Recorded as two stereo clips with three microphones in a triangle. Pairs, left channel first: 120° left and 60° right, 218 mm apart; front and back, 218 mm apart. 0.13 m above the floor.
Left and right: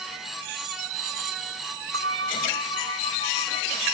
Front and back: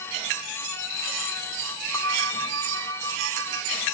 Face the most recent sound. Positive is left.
turn(degrees=-75)